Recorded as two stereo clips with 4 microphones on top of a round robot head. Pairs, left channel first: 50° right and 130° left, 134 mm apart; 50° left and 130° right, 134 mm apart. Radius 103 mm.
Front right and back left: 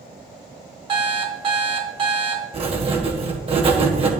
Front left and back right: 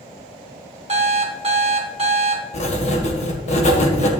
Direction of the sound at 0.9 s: 175° right.